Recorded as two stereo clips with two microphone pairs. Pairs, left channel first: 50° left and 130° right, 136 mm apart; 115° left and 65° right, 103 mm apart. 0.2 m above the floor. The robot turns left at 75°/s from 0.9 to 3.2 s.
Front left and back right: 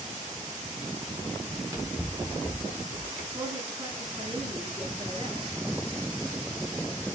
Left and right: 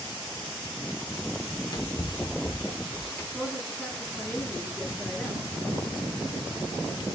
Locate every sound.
1.5 s running footsteps: 175° right, 2 m; by 3.2 s 40° left, 2.5 m
3.3 s a woman speaking: 170° right, 2 m